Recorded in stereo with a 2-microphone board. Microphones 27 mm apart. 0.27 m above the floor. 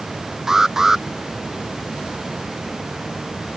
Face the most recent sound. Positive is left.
turn(degrees=-15)  # may be behind; listen again after turning